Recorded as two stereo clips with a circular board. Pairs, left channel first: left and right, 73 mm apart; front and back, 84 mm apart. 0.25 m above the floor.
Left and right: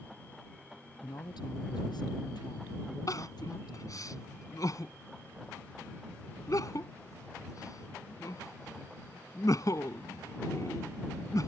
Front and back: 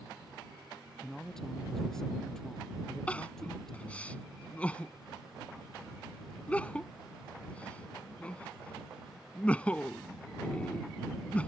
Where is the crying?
70° left.